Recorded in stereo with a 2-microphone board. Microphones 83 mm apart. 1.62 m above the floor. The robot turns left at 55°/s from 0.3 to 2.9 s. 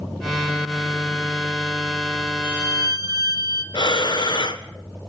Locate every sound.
2.4 s a violin: 25° right (ahead or behind), 1.9 m; by 3.6 s 50° right (ahead or behind), 1.9 m
3.7 s breathing: 65° left (ahead or behind), 1.5 m